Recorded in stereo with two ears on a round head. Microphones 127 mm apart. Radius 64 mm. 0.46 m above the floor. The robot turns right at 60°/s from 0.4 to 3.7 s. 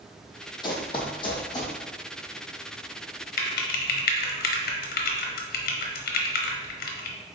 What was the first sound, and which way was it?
Running footsteps, 30° left (ahead or behind).